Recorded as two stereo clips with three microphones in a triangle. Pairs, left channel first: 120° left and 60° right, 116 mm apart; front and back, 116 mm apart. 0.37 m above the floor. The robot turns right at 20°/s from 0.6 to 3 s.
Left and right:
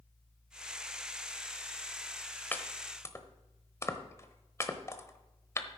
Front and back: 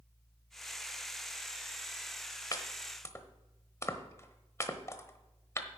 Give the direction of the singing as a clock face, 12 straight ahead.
I don't hear singing.